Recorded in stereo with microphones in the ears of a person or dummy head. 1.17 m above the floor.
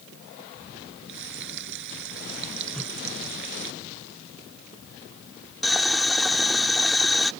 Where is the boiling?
Centre (ahead or behind).